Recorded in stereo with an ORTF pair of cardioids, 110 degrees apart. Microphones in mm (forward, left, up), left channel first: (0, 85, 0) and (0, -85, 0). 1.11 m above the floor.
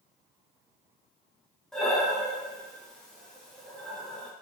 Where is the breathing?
5° left, 0.6 m.